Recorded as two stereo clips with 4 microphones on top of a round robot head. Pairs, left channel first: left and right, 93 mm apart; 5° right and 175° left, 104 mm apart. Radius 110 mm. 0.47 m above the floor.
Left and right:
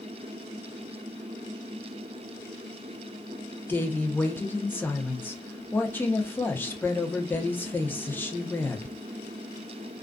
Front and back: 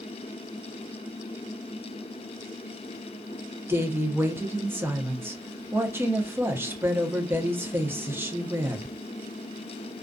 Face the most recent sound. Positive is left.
turn(degrees=135)